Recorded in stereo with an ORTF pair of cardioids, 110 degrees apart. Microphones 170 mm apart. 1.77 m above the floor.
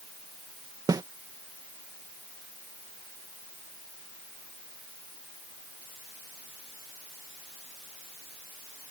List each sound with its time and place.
0.9 s a snare drum: 20° right